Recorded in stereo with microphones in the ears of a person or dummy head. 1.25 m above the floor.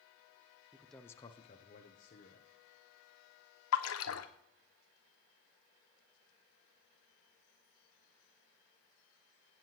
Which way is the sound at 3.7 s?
75° left (ahead or behind).